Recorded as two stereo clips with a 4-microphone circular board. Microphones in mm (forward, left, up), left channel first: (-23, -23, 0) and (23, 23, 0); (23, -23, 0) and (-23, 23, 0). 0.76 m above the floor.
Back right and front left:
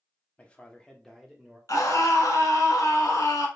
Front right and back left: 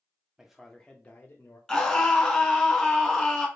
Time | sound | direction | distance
0.4 | a man speaking | 160° right | 0.7 m
1.7 | a scream | 125° right | 1.2 m